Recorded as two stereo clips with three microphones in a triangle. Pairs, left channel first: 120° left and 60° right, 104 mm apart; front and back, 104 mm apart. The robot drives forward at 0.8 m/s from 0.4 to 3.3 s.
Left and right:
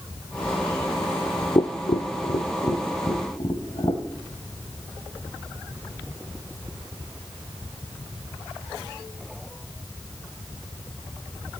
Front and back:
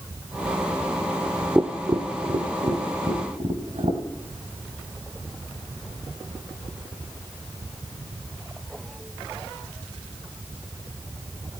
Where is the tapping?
115° left, 0.7 m; by 4.0 s 160° left, 1.8 m.